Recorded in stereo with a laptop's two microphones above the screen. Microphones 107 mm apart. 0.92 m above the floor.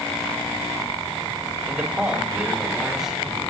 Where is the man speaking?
10° right (ahead or behind), 2.5 m; by 3.5 s centre (ahead or behind), 4 m.